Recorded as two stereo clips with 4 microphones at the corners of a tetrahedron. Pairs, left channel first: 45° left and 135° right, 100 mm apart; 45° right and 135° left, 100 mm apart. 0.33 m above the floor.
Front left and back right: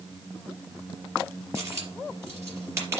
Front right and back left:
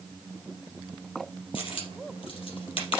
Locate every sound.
1.6 s a dropped coin: 75° right, 4 m